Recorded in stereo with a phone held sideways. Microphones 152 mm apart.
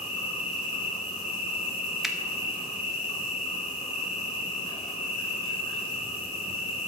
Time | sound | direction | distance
0.0 | an insect | 35° left (ahead or behind) | 4 m
2.0 | a finger snap | centre (ahead or behind) | 0.8 m